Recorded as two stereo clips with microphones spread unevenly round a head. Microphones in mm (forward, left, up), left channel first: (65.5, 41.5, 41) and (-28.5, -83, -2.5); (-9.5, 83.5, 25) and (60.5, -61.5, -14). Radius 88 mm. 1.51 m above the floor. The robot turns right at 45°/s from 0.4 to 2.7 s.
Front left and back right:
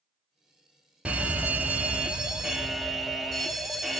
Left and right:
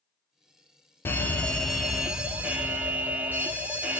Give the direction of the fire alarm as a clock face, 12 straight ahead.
5 o'clock.